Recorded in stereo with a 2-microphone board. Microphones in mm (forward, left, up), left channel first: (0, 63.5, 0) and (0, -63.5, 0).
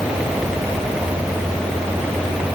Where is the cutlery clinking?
I don't hear cutlery clinking.